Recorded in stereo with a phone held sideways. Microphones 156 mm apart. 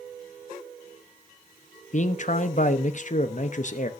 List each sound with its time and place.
1.9 s a man speaking: 55° left (ahead or behind), 0.8 m